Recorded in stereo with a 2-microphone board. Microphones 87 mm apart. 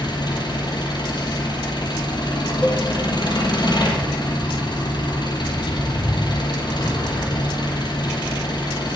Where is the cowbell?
15° left (ahead or behind), 0.7 m.